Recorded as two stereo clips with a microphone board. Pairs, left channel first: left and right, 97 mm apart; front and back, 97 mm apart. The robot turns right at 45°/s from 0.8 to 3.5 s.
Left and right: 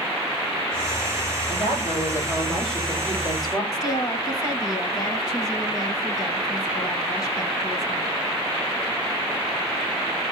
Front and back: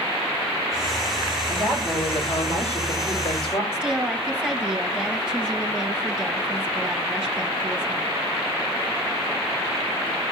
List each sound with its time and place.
1.5 s a woman speaking: 55° right, 6.5 m; by 3.6 s 35° left, 6.5 m
3.7 s a woman speaking: 105° left, 1.7 m